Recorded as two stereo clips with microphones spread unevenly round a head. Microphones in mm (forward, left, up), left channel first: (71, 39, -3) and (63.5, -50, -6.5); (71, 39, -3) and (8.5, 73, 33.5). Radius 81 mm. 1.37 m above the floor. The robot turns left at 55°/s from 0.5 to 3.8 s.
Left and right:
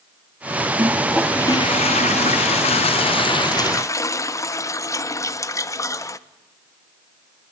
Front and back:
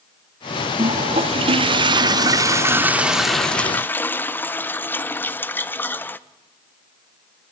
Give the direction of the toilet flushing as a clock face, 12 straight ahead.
5 o'clock.